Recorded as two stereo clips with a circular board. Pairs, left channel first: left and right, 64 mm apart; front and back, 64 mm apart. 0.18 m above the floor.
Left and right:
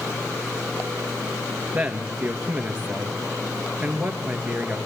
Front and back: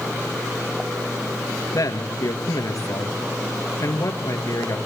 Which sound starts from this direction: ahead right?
A man speaking, at 1.7 s.